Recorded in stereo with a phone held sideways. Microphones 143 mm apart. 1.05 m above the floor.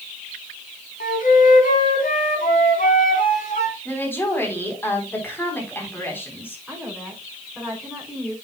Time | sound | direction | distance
1.0 | a flute | 70° left (ahead or behind) | 4 m
3.9 | a woman speaking | 15° left (ahead or behind) | 4 m
6.7 | a woman speaking | centre (ahead or behind) | 5.5 m